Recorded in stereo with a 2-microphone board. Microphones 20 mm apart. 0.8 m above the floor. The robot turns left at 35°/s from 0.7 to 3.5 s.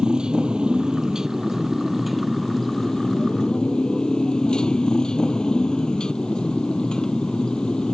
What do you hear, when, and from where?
0.0 s a motorcycle: 125° right; by 8.0 s 135° left